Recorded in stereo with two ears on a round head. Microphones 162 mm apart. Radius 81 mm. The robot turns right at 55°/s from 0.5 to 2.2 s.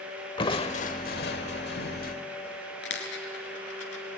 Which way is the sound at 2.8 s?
70° left (ahead or behind).